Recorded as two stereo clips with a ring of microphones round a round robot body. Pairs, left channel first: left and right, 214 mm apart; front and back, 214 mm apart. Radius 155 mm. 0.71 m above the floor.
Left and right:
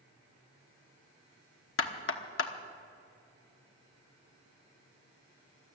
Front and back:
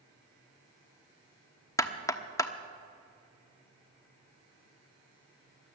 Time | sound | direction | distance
1.8 | knocking | 75° left | 1.1 m